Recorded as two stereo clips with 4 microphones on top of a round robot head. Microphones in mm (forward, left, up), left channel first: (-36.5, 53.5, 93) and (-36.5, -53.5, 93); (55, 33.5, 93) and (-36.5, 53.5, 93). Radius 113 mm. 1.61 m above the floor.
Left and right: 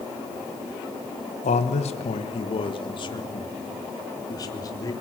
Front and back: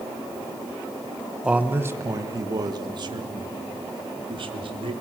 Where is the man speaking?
90° left, 1.3 m; by 4.9 s 145° left, 3.5 m.